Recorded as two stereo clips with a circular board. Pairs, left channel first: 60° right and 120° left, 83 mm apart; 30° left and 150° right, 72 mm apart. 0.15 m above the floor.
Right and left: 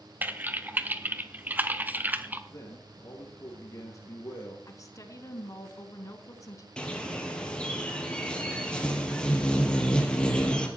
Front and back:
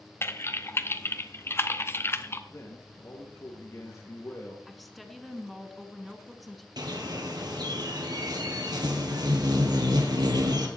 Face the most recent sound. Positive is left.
turn(degrees=-140)